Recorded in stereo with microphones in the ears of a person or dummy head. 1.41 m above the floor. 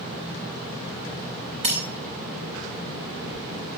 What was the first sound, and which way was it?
Breaking glass, 35° right (ahead or behind).